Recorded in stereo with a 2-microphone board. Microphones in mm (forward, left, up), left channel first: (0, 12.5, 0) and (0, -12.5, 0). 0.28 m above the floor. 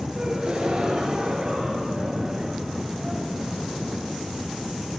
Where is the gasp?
35° right (ahead or behind), 5.5 m.